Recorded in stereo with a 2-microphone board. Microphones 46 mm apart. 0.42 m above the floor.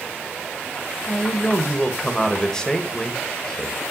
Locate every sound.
1.0 s a man speaking: 15° left (ahead or behind), 1.8 m